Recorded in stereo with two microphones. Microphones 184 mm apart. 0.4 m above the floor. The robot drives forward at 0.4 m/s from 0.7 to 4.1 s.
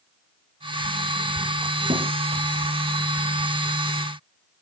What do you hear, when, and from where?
1.9 s a thud: 35° right (ahead or behind), 4.5 m